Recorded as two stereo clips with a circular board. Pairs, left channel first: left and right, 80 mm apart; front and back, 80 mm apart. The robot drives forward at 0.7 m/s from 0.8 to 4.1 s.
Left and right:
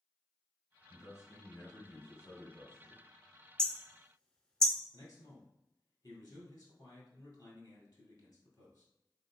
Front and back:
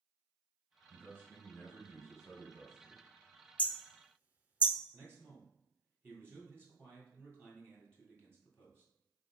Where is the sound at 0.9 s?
125° left, 1.9 m; by 3.0 s 155° left, 3 m.